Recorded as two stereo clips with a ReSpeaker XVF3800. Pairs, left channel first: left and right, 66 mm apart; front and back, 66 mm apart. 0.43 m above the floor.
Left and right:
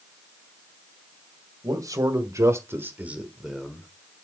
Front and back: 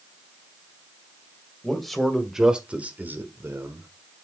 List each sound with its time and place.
1.6 s a man speaking: 85° right, 2 m; by 3.9 s 170° left, 1.6 m